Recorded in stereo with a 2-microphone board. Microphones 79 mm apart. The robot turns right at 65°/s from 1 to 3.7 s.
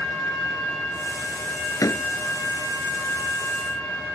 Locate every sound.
1.8 s a door slam: 50° left (ahead or behind); by 2.0 s 35° left (ahead or behind)